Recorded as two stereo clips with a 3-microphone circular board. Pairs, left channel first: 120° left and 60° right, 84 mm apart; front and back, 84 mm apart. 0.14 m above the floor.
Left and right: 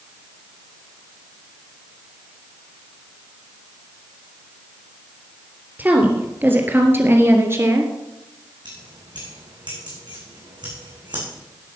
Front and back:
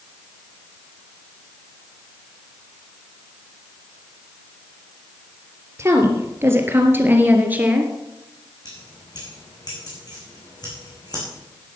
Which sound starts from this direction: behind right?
A woman speaking, at 5.8 s.